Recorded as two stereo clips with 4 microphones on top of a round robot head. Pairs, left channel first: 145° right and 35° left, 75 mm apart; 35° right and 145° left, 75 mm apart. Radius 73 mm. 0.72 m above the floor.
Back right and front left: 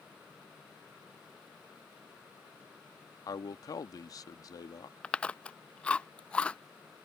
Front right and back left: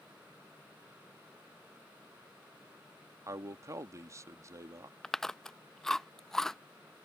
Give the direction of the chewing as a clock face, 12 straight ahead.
3 o'clock.